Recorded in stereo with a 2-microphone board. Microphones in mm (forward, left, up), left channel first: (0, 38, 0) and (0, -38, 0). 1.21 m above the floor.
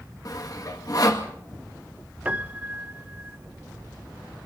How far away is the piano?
About 1.0 m.